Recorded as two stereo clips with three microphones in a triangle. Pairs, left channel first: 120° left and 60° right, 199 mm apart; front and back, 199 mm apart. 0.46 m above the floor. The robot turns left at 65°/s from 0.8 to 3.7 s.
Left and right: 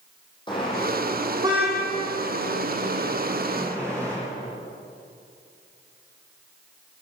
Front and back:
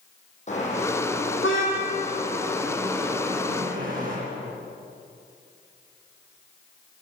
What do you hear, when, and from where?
0.5 s a car horn: 55° left, 9 m; by 4.2 s 135° right, 9 m